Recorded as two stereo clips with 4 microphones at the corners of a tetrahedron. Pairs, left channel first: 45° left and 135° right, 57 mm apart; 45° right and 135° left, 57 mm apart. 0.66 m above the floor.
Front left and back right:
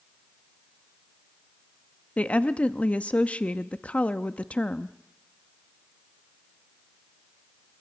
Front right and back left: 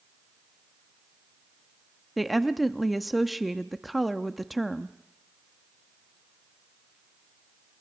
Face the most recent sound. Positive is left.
turn(degrees=45)